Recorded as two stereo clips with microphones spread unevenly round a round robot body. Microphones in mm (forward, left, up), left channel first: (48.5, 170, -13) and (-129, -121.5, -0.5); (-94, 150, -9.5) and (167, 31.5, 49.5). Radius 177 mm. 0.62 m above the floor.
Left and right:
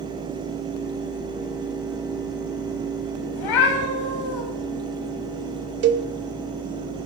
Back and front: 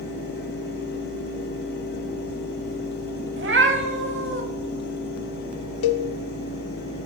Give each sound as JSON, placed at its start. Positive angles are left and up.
{"t": 3.4, "sound": "a cat meowing", "azimuth_deg": 25, "distance_m": 1.9}
{"t": 5.8, "sound": "a cowbell", "azimuth_deg": 180, "distance_m": 0.7}